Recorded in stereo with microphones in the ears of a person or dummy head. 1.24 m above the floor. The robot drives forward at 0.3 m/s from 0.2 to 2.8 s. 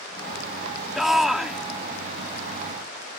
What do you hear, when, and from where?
0.9 s a shout: 5° right (ahead or behind)